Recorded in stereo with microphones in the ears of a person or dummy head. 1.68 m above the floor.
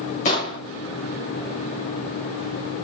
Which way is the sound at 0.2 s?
40° left (ahead or behind).